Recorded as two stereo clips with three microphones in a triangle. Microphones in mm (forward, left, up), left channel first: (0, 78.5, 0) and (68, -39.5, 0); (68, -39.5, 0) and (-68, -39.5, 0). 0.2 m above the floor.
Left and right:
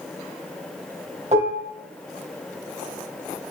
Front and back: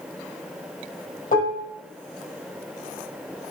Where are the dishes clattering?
20° right, 4 m.